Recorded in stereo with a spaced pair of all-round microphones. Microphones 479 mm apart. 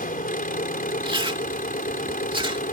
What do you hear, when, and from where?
0.0 s an engine running: 15° left (ahead or behind)
1.0 s chewing: 10° right (ahead or behind)